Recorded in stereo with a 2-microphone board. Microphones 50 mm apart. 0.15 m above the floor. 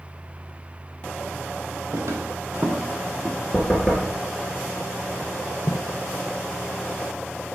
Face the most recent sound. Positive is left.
turn(degrees=65)  # may be behind; listen again after turning